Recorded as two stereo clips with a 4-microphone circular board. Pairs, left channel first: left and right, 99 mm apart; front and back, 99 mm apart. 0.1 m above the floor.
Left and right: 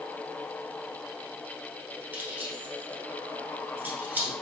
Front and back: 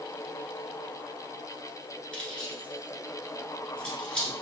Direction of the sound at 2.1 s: 65° right.